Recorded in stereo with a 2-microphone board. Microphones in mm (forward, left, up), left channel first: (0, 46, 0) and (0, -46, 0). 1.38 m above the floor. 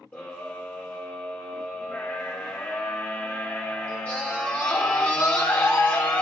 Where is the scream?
15° left (ahead or behind), 2.5 m.